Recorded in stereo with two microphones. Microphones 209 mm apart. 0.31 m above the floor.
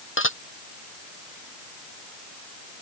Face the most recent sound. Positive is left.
turn(degrees=75)  # may be behind; listen again after turning